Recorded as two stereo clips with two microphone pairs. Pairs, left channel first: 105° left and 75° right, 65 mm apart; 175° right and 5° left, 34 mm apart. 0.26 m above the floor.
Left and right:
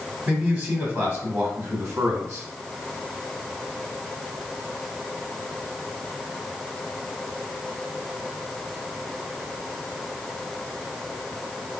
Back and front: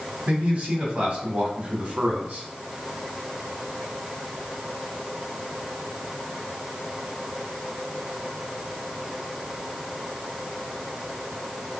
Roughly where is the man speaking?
Ahead.